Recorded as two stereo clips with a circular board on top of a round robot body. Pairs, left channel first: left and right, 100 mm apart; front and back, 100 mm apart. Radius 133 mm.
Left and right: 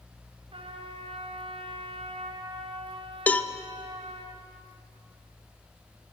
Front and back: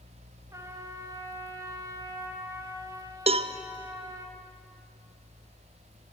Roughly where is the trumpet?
Behind right.